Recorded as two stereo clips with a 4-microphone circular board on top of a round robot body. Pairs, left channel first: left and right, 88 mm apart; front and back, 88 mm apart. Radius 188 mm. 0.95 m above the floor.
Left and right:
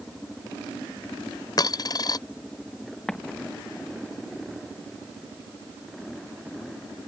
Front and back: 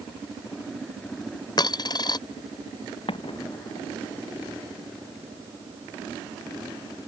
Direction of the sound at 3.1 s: 5° left.